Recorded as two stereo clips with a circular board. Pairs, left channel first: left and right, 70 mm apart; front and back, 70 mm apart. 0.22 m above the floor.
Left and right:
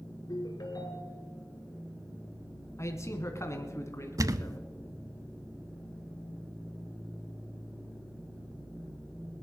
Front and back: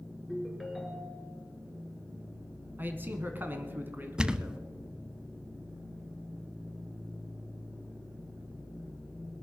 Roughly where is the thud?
Right.